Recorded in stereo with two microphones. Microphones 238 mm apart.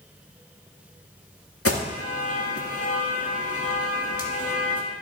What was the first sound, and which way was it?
An alarm, 70° left (ahead or behind).